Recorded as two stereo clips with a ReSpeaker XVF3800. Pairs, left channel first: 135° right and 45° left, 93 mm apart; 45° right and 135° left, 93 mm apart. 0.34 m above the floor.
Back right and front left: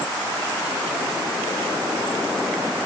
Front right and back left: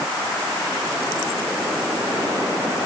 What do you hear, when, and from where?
Only background noise.